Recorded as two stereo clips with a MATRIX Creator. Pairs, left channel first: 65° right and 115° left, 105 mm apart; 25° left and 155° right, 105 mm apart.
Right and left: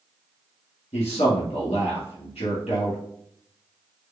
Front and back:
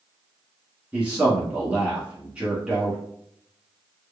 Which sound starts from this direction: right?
A man speaking, at 0.9 s.